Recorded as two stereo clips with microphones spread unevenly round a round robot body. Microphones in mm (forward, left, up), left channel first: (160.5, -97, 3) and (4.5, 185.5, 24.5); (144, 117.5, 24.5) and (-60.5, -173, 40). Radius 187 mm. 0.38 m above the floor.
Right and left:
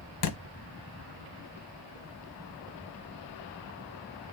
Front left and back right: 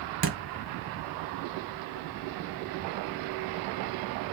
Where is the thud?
70° right, 0.8 m.